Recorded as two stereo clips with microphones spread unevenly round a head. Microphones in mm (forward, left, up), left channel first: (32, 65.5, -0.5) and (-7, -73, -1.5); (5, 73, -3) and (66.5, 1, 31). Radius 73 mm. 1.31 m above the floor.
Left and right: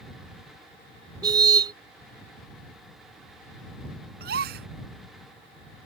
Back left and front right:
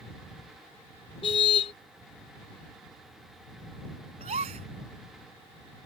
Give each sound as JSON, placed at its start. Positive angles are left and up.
{"t": 1.2, "sound": "a car horn", "azimuth_deg": -170}
{"t": 4.2, "sound": "a gasp", "azimuth_deg": -85}